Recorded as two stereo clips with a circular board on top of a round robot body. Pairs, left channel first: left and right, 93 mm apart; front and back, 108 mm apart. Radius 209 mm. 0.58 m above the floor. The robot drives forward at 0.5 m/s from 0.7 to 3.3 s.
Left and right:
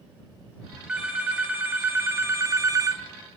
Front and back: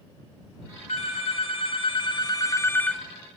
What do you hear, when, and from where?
0.9 s a phone ringing: 15° right, 1.3 m; by 3.0 s 85° right, 0.7 m